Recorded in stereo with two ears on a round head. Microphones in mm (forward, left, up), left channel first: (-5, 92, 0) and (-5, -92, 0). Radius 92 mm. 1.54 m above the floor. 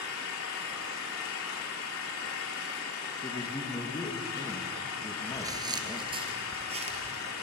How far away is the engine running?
About 4 m.